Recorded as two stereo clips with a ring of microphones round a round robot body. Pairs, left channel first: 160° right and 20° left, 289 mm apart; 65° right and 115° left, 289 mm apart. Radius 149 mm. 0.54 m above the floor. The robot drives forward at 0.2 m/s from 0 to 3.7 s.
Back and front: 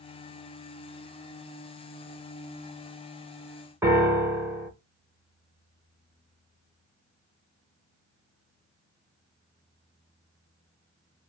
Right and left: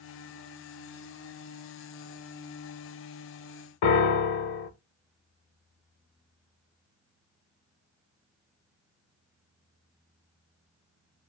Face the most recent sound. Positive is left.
turn(degrees=-60)